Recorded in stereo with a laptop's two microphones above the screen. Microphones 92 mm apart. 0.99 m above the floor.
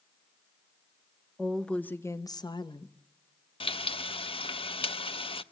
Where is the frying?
80° left, 0.7 m.